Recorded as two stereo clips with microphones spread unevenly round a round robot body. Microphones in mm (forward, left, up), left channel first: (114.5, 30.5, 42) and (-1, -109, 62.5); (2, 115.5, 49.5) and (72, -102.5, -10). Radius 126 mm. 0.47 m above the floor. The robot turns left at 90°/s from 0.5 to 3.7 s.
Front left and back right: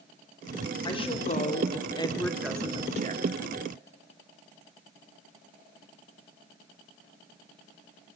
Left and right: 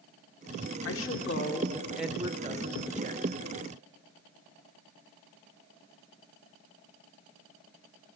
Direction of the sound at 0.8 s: 105° left.